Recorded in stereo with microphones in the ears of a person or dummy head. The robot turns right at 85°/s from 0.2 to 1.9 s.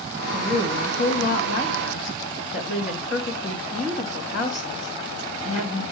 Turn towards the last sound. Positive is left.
turn(degrees=130)